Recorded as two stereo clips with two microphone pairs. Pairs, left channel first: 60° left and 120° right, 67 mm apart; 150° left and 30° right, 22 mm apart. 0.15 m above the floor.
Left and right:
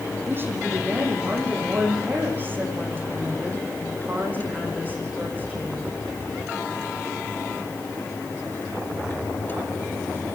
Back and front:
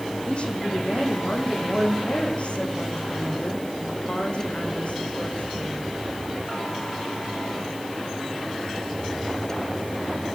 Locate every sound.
0.3 s a woman speaking: straight behind, 8 m; by 5.9 s 175° left, 12 m